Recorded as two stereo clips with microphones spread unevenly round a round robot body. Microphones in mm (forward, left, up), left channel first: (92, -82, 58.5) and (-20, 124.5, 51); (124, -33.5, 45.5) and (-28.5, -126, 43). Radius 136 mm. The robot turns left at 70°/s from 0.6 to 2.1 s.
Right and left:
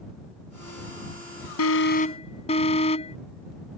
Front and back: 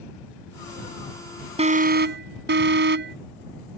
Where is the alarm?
95° right; by 3.2 s 130° right.